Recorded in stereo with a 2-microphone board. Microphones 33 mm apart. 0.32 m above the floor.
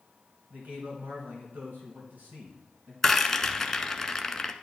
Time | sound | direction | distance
0.5 | a man speaking | 75° right (ahead or behind) | 3 m
3.0 | a rattle | 15° left (ahead or behind) | 0.6 m